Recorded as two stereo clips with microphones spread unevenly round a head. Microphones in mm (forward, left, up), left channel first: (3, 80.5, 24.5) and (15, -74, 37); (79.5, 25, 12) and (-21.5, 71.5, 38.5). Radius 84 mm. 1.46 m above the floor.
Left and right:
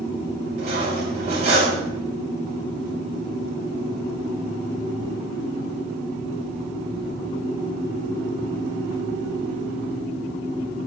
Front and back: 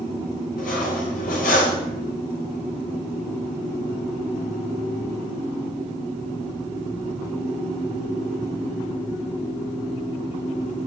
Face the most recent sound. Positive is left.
turn(degrees=-35)